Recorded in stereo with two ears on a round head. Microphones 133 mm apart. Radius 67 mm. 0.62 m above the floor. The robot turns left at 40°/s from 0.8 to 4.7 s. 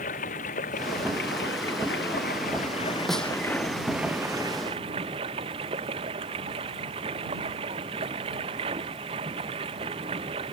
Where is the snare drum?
Centre (ahead or behind); by 3.3 s 10° left (ahead or behind).